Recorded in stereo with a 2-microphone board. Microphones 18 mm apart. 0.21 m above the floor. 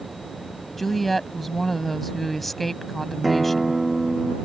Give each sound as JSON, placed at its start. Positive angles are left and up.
{"t": 0.8, "sound": "a woman speaking", "side_deg": 10}
{"t": 3.2, "sound": "a guitar", "side_deg": 0}